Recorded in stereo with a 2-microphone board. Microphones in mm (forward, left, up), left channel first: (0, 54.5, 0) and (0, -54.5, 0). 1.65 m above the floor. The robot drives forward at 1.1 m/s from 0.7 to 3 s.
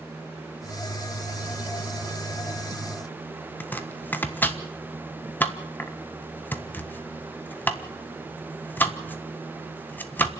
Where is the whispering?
No whispering in this recording.